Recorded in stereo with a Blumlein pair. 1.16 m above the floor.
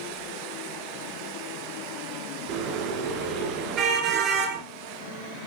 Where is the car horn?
30° right, 7 m.